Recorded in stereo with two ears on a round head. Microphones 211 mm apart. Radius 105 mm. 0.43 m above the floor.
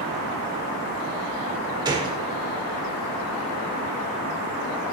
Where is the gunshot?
15° right (ahead or behind), 0.7 m.